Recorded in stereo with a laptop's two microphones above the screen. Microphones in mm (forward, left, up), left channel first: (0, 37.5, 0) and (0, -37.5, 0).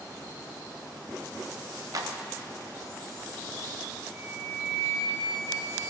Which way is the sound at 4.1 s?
5° left (ahead or behind).